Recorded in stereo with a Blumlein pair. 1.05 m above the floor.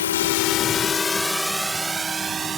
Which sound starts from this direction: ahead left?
A drone, at 0.0 s.